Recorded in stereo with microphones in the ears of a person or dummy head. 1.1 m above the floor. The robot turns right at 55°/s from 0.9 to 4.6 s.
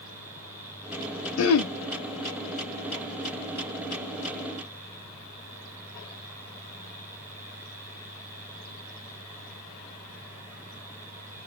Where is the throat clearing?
80° left, 0.6 m; by 1.7 s 65° left (ahead or behind), 0.6 m.